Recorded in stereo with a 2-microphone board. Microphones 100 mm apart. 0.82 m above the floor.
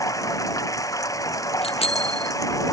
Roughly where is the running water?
Left.